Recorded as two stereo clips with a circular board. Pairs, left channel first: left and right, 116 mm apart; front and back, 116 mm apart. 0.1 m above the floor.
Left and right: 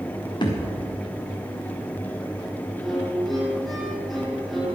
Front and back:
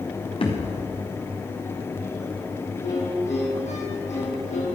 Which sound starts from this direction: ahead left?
A thud, at 0.4 s.